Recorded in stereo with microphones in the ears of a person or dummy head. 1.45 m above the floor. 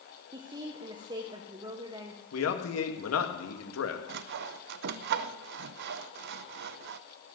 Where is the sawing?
55° right (ahead or behind), 0.6 m.